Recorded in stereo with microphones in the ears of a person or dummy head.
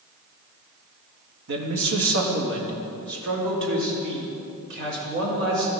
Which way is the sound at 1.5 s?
70° right (ahead or behind).